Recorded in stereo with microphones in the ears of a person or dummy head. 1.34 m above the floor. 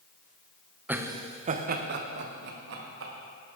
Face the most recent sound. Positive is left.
turn(degrees=-80)